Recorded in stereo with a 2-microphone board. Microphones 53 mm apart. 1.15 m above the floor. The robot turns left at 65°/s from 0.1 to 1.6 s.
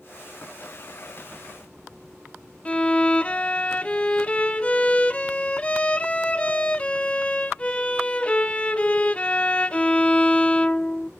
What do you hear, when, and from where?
2.6 s a violin: 20° left (ahead or behind), 0.6 m